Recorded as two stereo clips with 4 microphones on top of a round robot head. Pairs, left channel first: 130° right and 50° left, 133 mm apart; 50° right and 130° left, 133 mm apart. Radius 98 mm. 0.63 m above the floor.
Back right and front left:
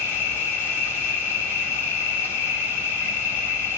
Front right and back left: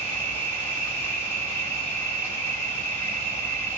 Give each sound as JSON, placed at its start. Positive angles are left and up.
{"t": 0.0, "sound": "an insect", "azimuth_deg": -90, "distance_m": 1.6}